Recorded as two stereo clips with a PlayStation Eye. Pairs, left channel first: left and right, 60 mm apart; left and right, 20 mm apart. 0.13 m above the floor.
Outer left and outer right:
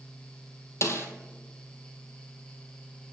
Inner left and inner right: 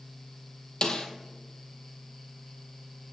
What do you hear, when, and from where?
0.8 s a snare drum: 50° left (ahead or behind), 1.0 m